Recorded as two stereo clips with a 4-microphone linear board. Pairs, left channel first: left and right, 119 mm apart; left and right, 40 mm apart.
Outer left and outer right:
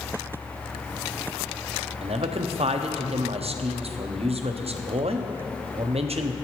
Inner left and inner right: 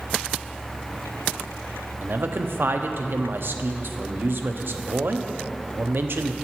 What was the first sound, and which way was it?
A man speaking, 65° right (ahead or behind).